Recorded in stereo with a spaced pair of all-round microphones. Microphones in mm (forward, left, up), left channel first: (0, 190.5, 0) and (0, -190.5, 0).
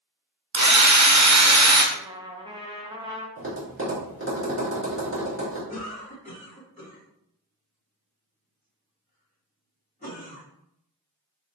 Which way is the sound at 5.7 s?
25° left (ahead or behind).